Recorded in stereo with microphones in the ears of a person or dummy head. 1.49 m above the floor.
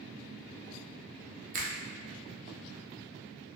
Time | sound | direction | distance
1.5 | a finger snap | 40° right (ahead or behind) | 0.6 m